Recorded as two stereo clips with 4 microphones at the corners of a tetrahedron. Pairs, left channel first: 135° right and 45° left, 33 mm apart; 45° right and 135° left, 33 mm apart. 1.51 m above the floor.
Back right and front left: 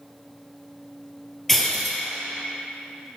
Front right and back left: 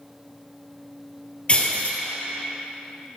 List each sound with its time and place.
1.5 s breaking glass: 60° right, 1.8 m